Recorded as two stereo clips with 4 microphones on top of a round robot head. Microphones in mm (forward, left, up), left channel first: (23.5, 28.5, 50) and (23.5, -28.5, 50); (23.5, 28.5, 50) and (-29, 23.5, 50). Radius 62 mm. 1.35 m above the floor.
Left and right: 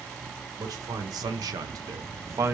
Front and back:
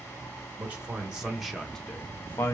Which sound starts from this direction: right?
A man speaking, at 0.6 s.